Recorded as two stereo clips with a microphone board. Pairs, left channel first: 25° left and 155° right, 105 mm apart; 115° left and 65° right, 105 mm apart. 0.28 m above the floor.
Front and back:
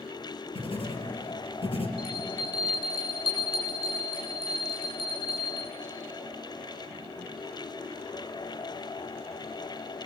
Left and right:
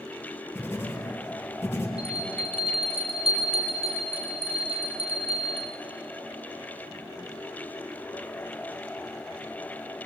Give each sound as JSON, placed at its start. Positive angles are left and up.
{"t": 0.6, "sound": "writing", "azimuth_deg": 40, "distance_m": 6.0}
{"t": 2.0, "sound": "a bell", "azimuth_deg": -60, "distance_m": 8.0}